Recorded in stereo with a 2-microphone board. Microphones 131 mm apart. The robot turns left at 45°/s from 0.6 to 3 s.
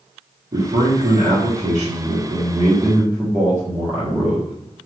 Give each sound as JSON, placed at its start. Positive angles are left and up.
{"t": 0.5, "sound": "a man speaking", "azimuth_deg": -50, "distance_m": 1.5}